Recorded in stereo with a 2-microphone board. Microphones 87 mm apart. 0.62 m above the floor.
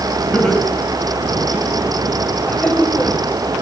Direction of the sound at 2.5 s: 15° left (ahead or behind).